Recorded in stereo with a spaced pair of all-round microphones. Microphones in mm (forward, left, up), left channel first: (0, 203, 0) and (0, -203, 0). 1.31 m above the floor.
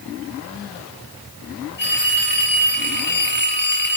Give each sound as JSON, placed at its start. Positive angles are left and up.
{"t": 1.8, "sound": "a phone ringing", "side_deg": 25, "distance_m": 1.8}